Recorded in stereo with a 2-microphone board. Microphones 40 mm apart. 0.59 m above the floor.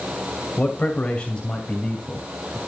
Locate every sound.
0.6 s a man speaking: 30° left (ahead or behind), 2.5 m; by 2.6 s 15° left (ahead or behind), 3.5 m